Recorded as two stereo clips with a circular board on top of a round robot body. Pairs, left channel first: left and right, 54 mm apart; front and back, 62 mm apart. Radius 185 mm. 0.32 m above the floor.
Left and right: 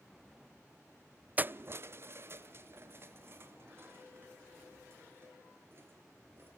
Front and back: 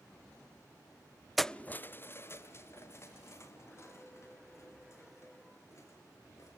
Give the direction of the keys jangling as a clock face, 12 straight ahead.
3 o'clock.